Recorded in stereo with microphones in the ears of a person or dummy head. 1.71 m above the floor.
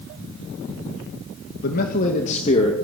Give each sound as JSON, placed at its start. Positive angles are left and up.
{"t": 1.6, "sound": "a man speaking", "side_deg": 60, "distance_m": 2.5}